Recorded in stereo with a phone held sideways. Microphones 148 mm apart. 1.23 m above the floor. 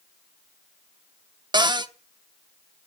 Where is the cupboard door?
30° right (ahead or behind), 0.9 m.